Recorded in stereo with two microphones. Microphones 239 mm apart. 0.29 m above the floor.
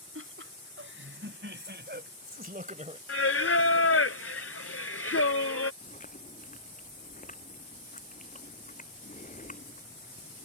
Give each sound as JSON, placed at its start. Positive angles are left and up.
{"t": 0.1, "sound": "laughter", "side_deg": -60}
{"t": 3.1, "sound": "singing", "side_deg": 70}
{"t": 5.8, "sound": "chewing", "side_deg": 35}